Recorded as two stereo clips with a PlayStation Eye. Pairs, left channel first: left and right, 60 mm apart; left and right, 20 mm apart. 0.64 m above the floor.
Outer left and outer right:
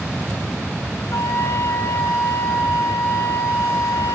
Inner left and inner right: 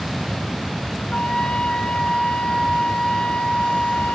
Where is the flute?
80° left, 5.5 m.